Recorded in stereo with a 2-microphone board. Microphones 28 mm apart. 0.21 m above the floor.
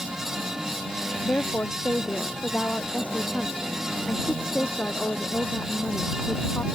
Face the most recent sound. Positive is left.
turn(degrees=70)  # may be behind; listen again after turning